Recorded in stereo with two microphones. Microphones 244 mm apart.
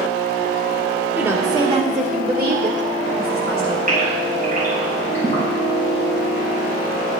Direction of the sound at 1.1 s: 5° right (ahead or behind).